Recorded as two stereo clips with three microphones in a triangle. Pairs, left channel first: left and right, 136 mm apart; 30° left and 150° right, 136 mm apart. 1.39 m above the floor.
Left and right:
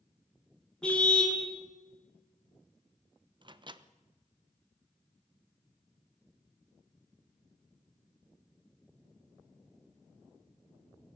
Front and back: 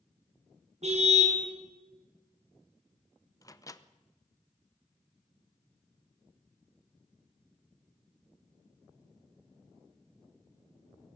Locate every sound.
0.8 s a car horn: 175° left, 6.5 m
3.4 s a microwave: 35° right, 0.9 m